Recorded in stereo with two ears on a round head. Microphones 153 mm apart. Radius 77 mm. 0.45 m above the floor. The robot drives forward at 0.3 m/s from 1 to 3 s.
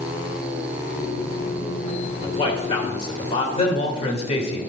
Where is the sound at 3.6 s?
40° left (ahead or behind), 1.6 m.